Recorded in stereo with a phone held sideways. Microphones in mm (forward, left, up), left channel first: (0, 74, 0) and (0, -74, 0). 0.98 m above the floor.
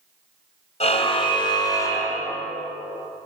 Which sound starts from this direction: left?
A car horn, at 0.8 s.